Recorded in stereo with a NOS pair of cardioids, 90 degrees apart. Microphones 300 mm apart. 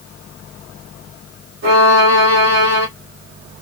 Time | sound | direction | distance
1.6 | a violin | 60° right | 1.3 m